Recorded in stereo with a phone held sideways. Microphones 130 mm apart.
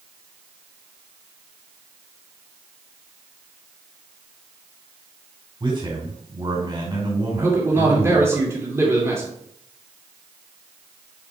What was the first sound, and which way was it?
A man speaking, 40° right (ahead or behind).